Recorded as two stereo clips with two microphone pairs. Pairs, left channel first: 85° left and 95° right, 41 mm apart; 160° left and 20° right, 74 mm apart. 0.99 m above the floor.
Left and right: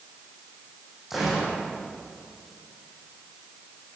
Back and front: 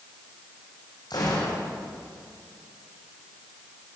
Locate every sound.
1.1 s a gunshot: 175° right, 7.5 m